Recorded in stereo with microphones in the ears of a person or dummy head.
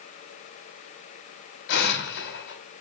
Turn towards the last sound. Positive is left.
turn(degrees=60)  # may be behind; listen again after turning